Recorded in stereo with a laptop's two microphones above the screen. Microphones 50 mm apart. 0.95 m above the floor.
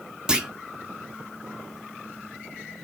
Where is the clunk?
15° right (ahead or behind), 1.1 m.